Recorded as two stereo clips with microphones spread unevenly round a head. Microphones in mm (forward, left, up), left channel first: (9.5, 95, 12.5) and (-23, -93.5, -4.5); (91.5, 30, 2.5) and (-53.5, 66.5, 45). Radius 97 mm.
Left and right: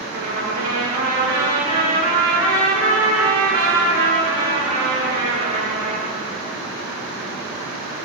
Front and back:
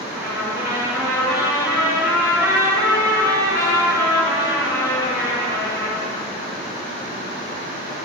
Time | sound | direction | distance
0.1 | a trumpet | 115° right | 9 m